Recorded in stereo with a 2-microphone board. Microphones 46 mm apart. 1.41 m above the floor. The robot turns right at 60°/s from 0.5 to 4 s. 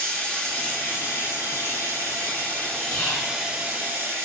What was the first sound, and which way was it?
Running water, 25° left.